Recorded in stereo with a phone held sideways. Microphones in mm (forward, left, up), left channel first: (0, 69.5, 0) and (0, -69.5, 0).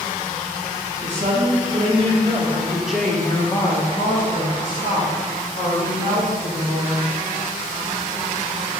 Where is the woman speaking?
45° right (ahead or behind), 1.5 m; by 7.1 s 85° left, 2.5 m.